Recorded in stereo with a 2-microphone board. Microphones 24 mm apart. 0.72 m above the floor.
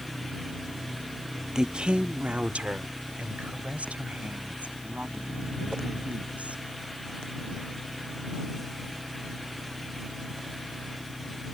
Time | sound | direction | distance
1.6 | a woman speaking | 30° right (ahead or behind) | ?